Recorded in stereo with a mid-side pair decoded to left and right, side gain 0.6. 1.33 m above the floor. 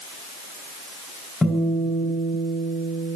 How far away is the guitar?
About 3.5 m.